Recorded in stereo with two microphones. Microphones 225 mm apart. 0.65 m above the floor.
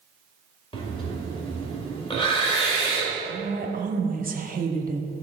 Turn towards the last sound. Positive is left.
turn(degrees=-40)  # may be behind; listen again after turning